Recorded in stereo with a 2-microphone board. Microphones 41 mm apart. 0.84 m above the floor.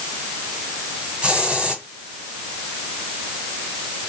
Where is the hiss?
30° right (ahead or behind), 1.5 m.